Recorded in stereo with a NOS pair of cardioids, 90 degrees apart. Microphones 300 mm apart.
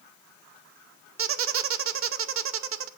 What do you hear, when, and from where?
1.2 s a squeak: 45° right, 0.7 m